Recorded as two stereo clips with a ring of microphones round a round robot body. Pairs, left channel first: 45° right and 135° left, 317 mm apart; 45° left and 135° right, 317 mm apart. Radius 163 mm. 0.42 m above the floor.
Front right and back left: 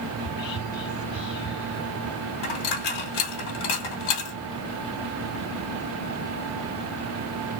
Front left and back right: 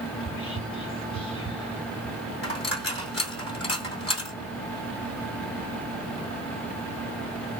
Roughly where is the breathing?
No breathing in this recording.